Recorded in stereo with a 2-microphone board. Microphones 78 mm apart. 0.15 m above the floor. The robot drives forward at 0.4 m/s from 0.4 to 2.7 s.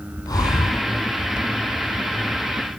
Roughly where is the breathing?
Left.